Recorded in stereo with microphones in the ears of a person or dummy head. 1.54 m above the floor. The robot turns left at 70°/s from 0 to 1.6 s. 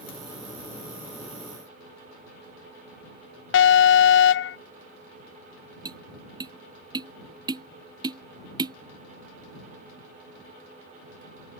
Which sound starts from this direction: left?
An alarm, at 3.5 s.